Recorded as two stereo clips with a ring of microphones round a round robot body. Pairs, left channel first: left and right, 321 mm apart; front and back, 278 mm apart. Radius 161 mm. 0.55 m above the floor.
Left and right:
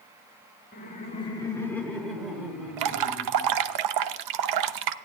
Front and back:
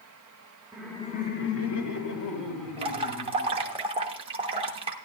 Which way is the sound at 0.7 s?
110° left.